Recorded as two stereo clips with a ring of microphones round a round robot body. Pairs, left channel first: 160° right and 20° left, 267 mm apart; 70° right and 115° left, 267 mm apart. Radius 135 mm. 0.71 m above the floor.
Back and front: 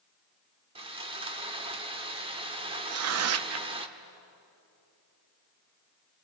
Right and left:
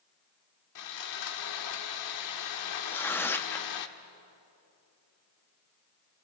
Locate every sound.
0.8 s sawing: 50° right, 1.4 m
2.9 s tearing paper: 15° left, 0.7 m